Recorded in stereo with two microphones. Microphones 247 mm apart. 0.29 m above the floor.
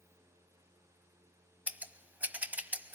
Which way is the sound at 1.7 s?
5° right (ahead or behind).